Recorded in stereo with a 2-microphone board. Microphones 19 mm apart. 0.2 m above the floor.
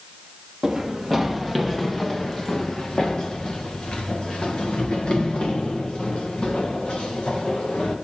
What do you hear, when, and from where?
0.6 s running footsteps: 5° right (ahead or behind), 1.9 m; by 8.0 s 80° left, 4 m